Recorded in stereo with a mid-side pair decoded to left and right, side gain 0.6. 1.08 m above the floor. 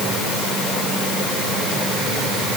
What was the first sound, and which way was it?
Only background noise.